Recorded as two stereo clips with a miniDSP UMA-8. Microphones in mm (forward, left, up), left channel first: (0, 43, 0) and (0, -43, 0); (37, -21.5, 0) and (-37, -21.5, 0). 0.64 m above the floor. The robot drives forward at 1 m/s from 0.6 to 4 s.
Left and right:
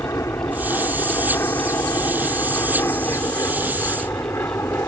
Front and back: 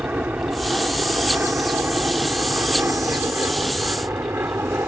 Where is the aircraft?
125° left; by 4.9 s 135° left.